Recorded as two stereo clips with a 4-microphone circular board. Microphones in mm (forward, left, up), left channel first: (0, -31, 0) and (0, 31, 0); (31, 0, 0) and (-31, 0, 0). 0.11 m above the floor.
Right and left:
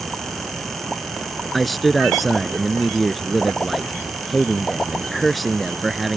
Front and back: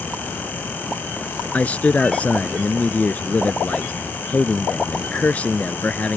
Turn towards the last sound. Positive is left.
turn(degrees=0)